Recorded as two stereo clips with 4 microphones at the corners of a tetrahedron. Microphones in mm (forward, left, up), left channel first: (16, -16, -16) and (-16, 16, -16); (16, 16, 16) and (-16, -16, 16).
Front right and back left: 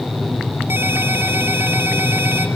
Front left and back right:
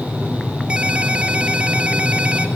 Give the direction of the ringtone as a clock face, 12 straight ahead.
7 o'clock.